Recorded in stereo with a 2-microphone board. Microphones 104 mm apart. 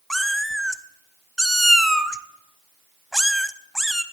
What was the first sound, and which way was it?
A cat meowing, centre (ahead or behind).